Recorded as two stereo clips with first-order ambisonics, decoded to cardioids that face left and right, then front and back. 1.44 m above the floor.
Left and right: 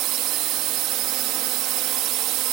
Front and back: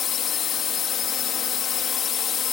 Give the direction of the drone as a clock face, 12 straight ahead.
2 o'clock.